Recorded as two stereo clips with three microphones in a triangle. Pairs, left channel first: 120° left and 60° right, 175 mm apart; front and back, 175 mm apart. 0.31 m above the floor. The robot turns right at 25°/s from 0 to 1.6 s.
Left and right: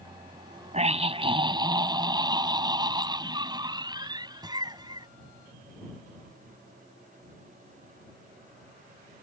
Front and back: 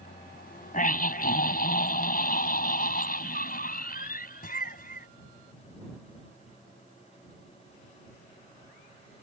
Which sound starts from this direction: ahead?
A scream, at 0.7 s.